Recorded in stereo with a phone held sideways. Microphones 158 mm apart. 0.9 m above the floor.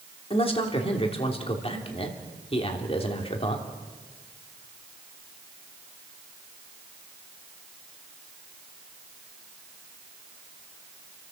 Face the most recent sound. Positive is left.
turn(degrees=35)  # may be behind; listen again after turning